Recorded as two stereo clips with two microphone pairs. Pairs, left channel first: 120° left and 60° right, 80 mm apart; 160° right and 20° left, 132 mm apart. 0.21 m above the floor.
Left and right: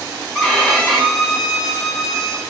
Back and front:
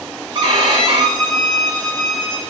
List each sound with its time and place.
0.3 s a violin: 50° left, 1.5 m